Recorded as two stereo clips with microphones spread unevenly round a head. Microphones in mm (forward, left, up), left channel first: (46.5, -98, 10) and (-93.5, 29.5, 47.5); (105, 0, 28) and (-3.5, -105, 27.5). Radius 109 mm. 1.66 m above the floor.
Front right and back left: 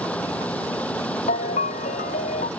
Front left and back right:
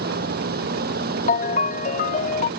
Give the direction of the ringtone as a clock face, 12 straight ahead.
11 o'clock.